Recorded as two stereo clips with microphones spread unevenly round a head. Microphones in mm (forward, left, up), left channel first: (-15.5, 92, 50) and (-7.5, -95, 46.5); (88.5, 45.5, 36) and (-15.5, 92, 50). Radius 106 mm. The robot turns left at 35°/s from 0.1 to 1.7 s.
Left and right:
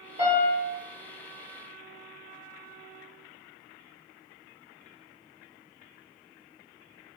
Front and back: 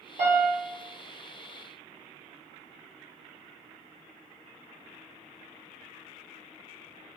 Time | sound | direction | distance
0.2 | a piano | 145° right | 1.2 m